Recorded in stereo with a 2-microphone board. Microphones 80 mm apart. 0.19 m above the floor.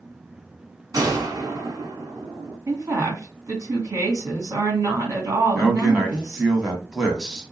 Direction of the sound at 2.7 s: 40° right (ahead or behind).